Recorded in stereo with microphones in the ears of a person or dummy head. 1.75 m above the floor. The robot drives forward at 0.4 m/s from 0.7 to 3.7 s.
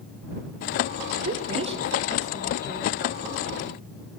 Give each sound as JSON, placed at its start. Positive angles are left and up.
{"t": 1.2, "sound": "a woman speaking", "side_deg": -30, "distance_m": 0.6}